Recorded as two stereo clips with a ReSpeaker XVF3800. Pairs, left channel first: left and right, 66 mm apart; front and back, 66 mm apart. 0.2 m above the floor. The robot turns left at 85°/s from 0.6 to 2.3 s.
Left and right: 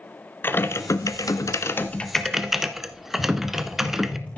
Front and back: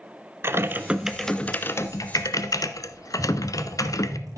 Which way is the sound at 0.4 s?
140° left.